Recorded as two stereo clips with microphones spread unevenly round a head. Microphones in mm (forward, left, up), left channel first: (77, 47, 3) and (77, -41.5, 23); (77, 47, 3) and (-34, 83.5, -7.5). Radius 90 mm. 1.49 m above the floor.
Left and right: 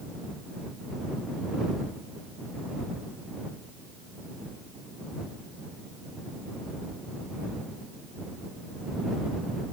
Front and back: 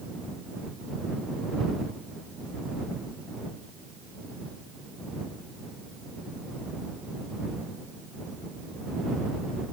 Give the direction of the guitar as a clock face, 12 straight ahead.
No guitar in this recording.